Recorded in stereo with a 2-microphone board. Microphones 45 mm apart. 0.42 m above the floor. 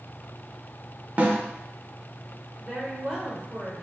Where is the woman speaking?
20° right (ahead or behind), 1.7 m.